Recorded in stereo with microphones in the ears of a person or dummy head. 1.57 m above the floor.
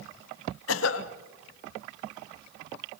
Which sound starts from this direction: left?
A cough, at 0.7 s.